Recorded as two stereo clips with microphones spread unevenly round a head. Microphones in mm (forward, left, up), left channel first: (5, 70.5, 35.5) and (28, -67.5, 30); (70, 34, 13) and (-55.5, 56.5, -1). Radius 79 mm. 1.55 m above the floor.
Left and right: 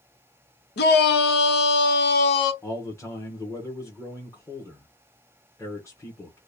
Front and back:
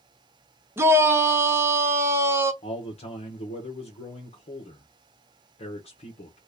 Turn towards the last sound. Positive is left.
turn(degrees=25)